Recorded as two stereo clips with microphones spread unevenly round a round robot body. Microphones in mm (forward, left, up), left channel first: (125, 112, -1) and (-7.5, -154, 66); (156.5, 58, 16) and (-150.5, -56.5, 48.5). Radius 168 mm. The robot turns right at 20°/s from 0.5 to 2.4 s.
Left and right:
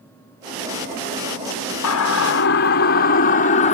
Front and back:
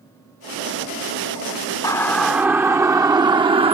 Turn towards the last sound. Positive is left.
turn(degrees=125)